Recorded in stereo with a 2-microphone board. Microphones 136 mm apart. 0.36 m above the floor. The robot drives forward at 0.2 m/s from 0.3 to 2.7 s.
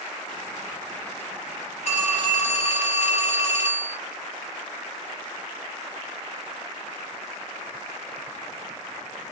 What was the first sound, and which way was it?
A phone ringing, 60° left (ahead or behind).